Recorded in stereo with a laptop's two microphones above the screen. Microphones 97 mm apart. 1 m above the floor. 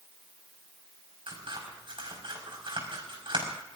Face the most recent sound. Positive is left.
turn(degrees=-65)  # may be behind; listen again after turning